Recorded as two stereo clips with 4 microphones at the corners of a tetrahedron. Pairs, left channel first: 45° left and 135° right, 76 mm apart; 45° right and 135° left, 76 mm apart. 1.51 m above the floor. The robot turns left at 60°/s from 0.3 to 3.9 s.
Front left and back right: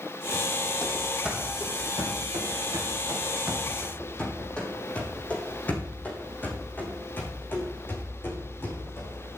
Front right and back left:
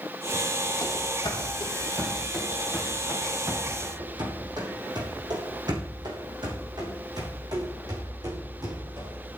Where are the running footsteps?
20° right, 3 m; by 9.2 s 105° left, 6 m.